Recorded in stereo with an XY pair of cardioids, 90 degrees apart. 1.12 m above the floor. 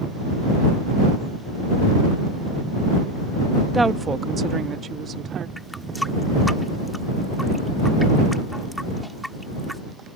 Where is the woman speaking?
15° right; by 5.5 s 65° right.